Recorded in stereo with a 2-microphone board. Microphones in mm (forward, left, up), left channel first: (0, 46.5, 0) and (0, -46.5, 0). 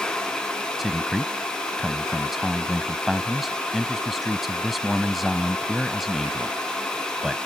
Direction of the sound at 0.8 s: Centre (ahead or behind).